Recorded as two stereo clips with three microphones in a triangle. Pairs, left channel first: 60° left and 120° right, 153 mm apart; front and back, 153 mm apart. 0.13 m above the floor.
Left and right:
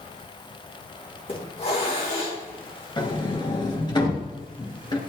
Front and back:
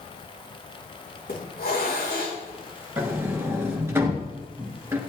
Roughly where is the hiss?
Ahead.